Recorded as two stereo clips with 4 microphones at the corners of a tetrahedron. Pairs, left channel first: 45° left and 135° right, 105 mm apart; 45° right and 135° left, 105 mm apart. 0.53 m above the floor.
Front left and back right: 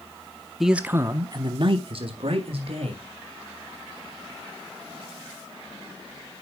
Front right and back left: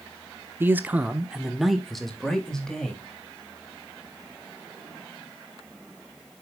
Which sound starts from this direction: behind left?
A man speaking, at 0.6 s.